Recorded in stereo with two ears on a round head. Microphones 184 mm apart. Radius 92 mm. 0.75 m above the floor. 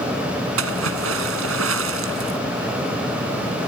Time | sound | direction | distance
0.6 | a splash | 70° right (ahead or behind) | ?